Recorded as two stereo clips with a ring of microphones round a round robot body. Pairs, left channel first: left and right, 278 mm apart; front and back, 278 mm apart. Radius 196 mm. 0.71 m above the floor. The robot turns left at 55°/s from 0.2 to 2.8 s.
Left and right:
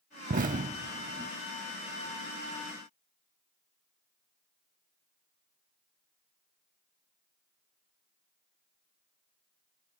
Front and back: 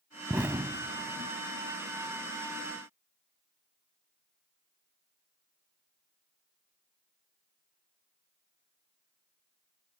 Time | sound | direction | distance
0.3 | an explosion | 100° right | ?